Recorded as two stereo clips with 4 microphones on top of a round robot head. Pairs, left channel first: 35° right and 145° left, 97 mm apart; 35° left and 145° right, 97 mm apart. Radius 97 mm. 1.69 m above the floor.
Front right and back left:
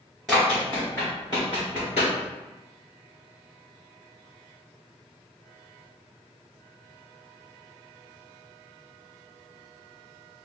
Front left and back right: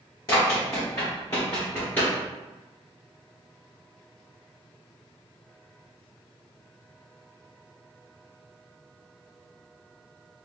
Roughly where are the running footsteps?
Ahead left.